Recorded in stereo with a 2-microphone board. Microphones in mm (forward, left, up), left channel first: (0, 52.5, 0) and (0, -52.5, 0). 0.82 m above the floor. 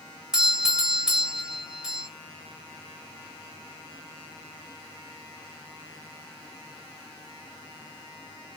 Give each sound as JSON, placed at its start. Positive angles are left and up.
{"t": 0.3, "sound": "a doorbell", "side_deg": -5, "distance_m": 1.1}